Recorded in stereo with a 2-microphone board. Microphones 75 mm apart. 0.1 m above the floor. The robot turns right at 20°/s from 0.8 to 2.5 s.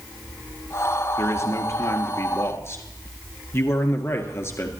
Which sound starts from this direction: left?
A man speaking, at 1.2 s.